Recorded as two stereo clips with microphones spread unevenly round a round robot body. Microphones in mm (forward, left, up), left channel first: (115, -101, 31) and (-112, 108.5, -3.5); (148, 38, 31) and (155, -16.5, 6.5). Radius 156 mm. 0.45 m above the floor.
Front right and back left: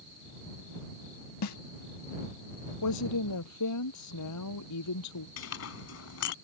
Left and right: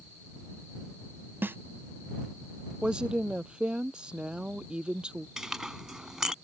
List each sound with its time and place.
1.4 s a snare drum: 15° right
2.8 s a woman speaking: 10° right
5.4 s a clink: straight ahead